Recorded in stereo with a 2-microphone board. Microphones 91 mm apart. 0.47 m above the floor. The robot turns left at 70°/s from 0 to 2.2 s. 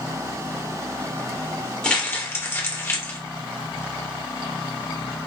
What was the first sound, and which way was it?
Crumpling, 10° left (ahead or behind).